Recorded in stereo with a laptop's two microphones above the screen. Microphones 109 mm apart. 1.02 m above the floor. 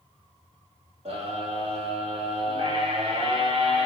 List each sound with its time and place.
1.1 s a scream: 65° right (ahead or behind), 3.5 m